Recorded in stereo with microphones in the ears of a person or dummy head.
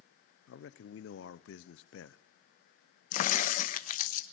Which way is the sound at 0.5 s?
75° left (ahead or behind).